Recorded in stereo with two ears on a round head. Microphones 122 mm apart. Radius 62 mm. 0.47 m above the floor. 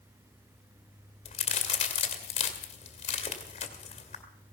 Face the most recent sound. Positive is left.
turn(degrees=45)  # may be behind; listen again after turning